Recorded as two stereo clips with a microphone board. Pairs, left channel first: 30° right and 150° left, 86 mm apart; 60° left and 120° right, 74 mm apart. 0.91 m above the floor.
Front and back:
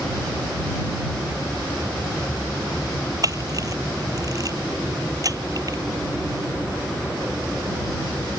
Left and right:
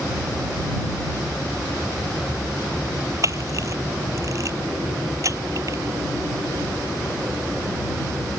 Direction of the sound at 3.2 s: 165° right.